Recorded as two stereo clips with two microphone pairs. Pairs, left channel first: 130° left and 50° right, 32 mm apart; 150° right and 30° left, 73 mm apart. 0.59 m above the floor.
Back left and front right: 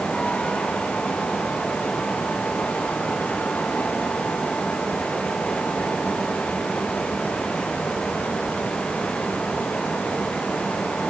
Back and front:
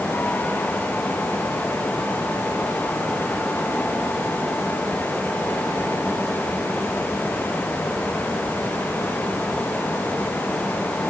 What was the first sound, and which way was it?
Only background noise.